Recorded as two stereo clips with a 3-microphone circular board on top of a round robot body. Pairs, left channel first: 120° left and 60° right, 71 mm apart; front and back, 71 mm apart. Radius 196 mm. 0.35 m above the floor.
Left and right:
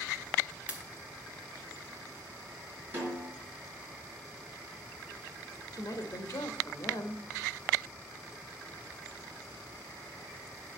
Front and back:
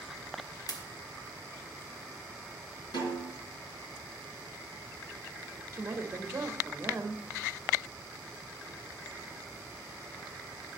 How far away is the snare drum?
About 5 m.